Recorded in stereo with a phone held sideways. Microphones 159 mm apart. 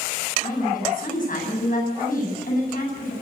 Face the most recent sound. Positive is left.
turn(degrees=60)  # may be behind; listen again after turning